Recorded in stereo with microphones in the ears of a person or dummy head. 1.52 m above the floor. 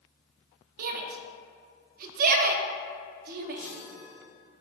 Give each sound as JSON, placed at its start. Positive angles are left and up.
{"t": 0.8, "sound": "a shout", "side_deg": -50, "distance_m": 0.5}
{"t": 3.6, "sound": "a chime", "side_deg": 5, "distance_m": 1.8}